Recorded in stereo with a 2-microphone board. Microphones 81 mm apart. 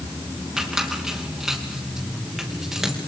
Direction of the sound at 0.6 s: 5° right (ahead or behind).